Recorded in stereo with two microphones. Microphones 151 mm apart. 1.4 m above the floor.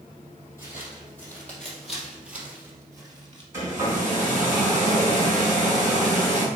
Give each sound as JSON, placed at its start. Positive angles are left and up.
{"t": 0.6, "sound": "footsteps", "side_deg": 20, "distance_m": 3.5}
{"t": 3.5, "sound": "a hair dryer", "side_deg": -20, "distance_m": 3.0}